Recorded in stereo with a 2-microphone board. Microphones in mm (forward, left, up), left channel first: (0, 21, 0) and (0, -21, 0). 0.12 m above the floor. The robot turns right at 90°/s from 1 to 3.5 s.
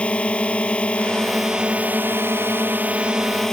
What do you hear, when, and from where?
0.0 s a drone: 150° left; by 3.5 s 15° left